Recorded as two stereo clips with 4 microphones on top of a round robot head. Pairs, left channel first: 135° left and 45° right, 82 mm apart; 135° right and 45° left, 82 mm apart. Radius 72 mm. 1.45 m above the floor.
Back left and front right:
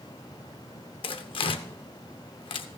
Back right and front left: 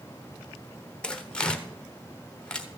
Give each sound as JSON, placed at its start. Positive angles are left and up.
{"t": 1.0, "sound": "tearing paper", "azimuth_deg": 145, "distance_m": 1.0}